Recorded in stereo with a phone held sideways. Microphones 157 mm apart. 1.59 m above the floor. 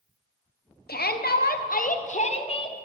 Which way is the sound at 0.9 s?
90° left.